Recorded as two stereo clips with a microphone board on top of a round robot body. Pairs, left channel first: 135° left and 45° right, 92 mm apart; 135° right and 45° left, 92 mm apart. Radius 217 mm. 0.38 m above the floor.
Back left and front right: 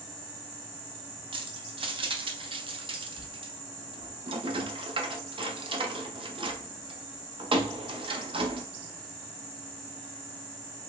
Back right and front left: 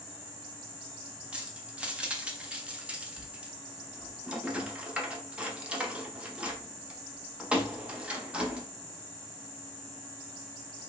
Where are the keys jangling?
30° right, 0.8 m.